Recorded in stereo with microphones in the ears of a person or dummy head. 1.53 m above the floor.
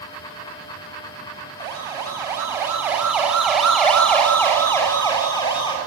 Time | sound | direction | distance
1.6 | a siren | 25° right (ahead or behind) | 8 m